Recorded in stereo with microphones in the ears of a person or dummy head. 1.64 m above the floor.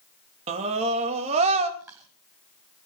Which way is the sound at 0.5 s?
45° right (ahead or behind).